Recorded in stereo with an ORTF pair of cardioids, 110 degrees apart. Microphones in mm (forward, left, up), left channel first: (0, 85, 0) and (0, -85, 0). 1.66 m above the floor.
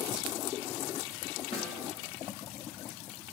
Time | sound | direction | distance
1.5 | a snare drum | 35° left | 3 m